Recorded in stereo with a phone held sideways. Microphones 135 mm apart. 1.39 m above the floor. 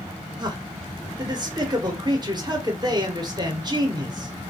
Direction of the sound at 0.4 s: 30° right (ahead or behind).